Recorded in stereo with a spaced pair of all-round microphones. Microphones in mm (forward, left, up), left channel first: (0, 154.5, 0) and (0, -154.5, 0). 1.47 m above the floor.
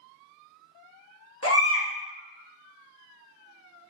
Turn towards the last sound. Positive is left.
turn(degrees=50)  # may be behind; listen again after turning